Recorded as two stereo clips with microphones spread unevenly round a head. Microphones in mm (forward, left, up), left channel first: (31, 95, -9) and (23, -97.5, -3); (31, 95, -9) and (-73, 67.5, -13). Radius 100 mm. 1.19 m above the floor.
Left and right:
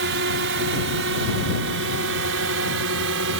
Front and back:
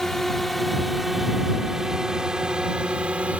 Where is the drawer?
No drawer in this recording.